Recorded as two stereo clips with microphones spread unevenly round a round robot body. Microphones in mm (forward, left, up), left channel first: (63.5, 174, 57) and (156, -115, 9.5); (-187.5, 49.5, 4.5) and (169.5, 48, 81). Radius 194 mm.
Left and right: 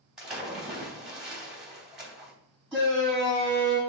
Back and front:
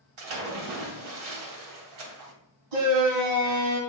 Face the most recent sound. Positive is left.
turn(degrees=15)